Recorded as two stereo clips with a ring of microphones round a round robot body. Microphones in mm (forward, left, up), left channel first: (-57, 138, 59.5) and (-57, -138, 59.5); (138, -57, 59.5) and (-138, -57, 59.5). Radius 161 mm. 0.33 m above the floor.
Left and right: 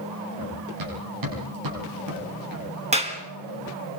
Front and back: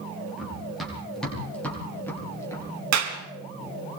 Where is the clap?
155° right, 3.5 m.